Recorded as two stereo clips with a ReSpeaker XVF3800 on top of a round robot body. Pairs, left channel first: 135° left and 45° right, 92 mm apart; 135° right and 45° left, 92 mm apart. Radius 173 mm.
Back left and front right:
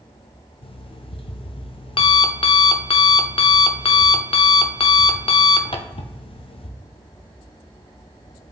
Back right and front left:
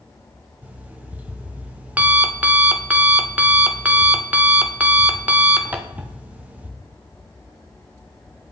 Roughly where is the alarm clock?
Behind left.